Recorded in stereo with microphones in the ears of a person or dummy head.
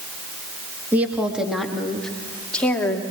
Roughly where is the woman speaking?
Centre.